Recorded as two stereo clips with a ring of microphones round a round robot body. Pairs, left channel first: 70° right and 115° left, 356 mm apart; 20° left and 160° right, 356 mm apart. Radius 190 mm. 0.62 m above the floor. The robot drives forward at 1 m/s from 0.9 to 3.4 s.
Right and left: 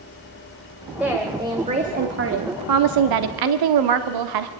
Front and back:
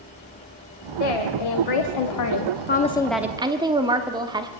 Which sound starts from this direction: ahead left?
A woman speaking, at 1.0 s.